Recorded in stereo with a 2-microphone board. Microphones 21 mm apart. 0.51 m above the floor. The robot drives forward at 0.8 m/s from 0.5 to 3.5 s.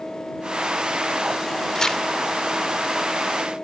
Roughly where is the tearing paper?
Left.